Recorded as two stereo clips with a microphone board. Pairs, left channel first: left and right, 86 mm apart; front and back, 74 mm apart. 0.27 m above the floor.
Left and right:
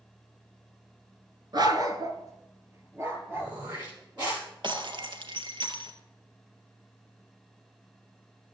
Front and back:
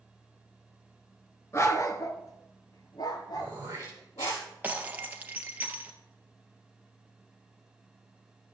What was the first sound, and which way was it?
A dog barking, 50° right.